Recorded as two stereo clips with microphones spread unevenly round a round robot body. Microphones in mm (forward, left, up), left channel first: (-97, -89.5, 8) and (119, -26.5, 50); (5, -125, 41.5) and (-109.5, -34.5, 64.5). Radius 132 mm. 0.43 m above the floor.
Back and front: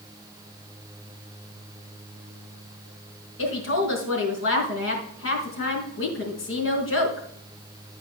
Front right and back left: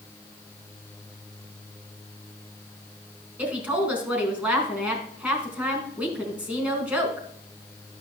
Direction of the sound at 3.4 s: 135° right.